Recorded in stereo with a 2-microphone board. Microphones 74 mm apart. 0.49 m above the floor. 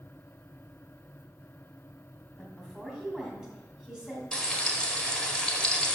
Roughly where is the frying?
Centre.